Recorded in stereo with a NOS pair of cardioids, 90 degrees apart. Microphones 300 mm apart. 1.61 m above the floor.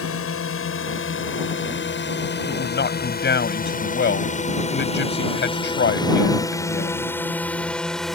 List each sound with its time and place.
0.0 s a drone: 45° left; by 8.2 s straight ahead
2.5 s a man speaking: 35° left